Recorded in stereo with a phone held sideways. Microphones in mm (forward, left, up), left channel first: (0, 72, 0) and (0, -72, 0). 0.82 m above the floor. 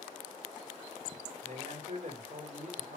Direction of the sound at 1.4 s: 60° right (ahead or behind).